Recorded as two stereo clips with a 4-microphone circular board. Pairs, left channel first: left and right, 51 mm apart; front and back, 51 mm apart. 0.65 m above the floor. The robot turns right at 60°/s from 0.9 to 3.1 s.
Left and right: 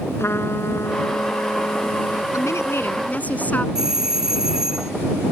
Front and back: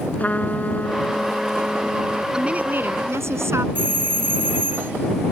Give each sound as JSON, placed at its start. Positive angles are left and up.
{"t": 0.2, "sound": "a trumpet", "azimuth_deg": 60}
{"t": 2.3, "sound": "a woman speaking", "azimuth_deg": 105}
{"t": 3.8, "sound": "a doorbell", "azimuth_deg": -165}